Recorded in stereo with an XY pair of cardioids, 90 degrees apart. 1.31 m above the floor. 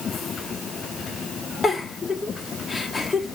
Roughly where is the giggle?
Ahead left.